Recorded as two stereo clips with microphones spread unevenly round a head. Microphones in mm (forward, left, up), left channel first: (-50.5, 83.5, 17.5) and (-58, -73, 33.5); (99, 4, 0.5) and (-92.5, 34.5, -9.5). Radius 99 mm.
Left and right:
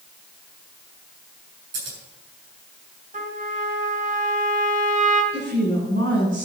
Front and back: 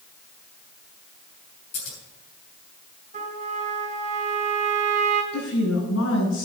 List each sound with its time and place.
1.7 s scissors: 70° right, 7 m
3.1 s a trumpet: 130° right, 3.5 m
5.3 s a woman speaking: 45° right, 6.5 m